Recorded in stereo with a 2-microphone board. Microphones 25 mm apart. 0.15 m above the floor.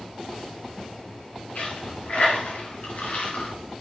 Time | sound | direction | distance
1.6 | a dropped coin | 80° left | 5 m